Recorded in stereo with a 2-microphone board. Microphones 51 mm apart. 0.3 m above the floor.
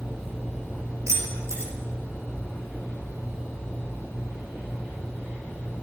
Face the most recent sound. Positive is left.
turn(degrees=-80)